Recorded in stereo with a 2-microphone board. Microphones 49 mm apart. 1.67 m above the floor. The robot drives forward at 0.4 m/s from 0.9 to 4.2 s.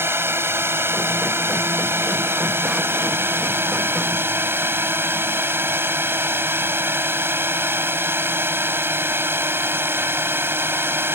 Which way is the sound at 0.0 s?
60° right (ahead or behind).